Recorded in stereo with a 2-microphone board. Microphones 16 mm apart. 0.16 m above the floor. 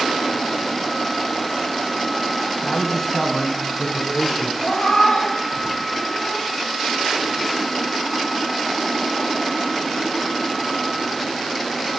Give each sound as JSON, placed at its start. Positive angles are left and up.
{"t": 2.6, "sound": "a man speaking", "side_deg": 0, "distance_m": 1.2}
{"t": 4.6, "sound": "a cat meowing", "side_deg": 75, "distance_m": 2.5}